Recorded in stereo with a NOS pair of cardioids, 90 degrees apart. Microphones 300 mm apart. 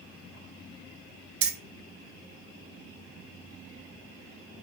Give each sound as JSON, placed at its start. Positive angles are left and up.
{"t": 1.4, "sound": "keys jangling", "azimuth_deg": -50, "distance_m": 0.6}